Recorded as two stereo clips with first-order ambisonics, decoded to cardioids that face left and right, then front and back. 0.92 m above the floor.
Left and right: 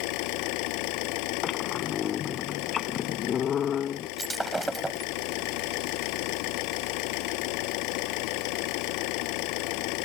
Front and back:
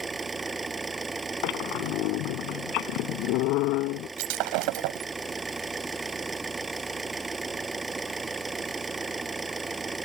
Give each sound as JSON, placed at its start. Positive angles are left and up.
{"t": 0.0, "sound": "an engine running", "azimuth_deg": 105}
{"t": 1.4, "sound": "a squeak", "azimuth_deg": 30}
{"t": 4.2, "sound": "breaking glass", "azimuth_deg": -175}